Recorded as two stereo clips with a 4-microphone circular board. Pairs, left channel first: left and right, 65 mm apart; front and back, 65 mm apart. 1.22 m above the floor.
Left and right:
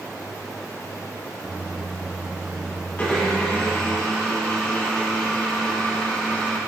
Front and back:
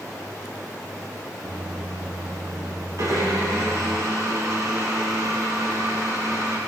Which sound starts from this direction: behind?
A microwave, at 1.4 s.